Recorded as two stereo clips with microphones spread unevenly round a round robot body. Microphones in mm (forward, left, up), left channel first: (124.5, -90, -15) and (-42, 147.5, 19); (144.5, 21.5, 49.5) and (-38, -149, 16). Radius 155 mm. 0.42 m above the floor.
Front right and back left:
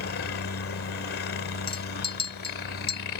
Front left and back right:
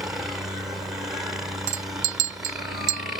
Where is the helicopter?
60° right.